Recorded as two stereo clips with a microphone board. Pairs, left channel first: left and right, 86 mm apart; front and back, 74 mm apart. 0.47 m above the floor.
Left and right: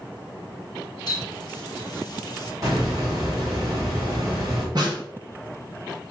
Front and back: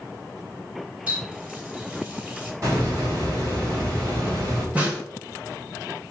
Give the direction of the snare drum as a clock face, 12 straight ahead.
4 o'clock.